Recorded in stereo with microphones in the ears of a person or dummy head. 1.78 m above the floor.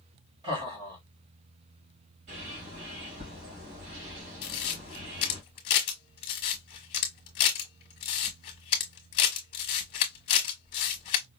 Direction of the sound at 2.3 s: 65° right (ahead or behind).